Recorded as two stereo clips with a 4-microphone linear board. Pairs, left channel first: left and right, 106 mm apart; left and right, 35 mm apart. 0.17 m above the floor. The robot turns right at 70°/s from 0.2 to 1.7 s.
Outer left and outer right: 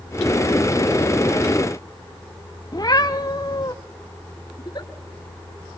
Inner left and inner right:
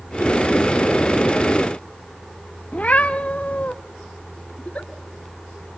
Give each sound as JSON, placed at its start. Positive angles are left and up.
{"t": 2.7, "sound": "a cat meowing", "side_deg": 40, "distance_m": 1.4}
{"t": 4.6, "sound": "a giggle", "side_deg": 40, "distance_m": 3.0}